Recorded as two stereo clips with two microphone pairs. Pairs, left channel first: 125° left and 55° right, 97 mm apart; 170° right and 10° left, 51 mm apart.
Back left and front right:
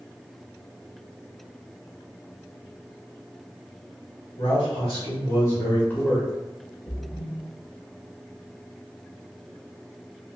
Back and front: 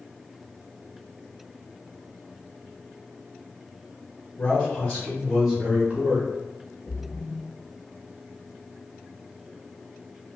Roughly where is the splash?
Behind.